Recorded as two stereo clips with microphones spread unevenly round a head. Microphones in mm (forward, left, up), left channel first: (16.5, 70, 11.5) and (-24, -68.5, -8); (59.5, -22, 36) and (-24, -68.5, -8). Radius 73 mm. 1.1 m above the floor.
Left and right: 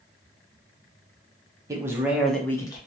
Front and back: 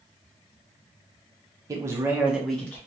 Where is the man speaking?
165° right, 1.0 m; by 2.8 s 125° left, 0.7 m.